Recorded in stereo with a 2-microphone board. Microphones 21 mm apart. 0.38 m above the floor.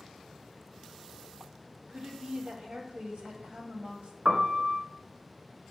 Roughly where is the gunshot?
I don't hear a gunshot.